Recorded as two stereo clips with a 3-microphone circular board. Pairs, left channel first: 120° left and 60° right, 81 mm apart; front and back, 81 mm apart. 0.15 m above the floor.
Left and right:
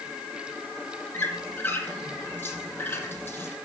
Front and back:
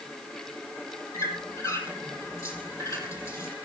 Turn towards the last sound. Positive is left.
turn(degrees=50)